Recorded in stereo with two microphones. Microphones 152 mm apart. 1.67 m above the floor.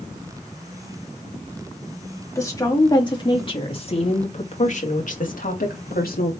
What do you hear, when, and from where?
2.4 s a woman speaking: 20° left (ahead or behind), 3 m; by 6.3 s 75° left (ahead or behind), 2.5 m